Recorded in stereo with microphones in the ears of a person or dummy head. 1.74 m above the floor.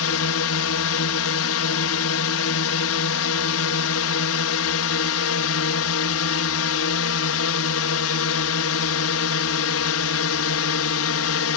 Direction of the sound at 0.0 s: 65° left (ahead or behind).